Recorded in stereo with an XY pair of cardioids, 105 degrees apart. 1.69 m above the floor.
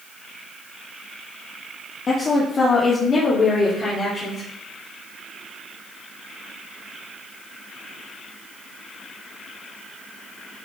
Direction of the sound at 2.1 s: 40° left.